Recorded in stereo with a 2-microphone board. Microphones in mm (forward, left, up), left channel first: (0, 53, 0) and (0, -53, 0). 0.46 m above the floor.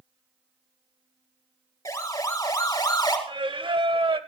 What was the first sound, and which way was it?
A siren, 35° left (ahead or behind).